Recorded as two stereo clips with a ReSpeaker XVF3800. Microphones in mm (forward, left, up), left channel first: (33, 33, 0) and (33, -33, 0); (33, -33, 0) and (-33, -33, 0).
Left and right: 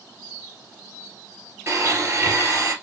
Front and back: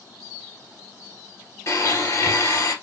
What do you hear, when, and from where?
1.7 s a blender: 40° right, 3 m